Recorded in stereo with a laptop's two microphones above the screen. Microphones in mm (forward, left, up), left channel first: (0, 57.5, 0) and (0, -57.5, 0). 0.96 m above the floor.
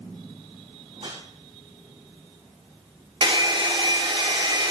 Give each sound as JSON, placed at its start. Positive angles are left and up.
{"t": 0.9, "sound": "a whoosh", "side_deg": -60, "distance_m": 6.5}
{"t": 3.2, "sound": "a hair dryer", "side_deg": -45, "distance_m": 0.8}